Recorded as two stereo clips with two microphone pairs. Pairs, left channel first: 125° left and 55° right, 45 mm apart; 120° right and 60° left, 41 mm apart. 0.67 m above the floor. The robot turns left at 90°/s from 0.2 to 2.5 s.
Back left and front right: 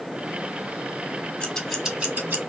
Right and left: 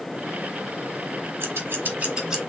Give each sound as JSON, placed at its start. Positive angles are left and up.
{"t": 1.4, "sound": "scissors", "azimuth_deg": 60, "distance_m": 1.2}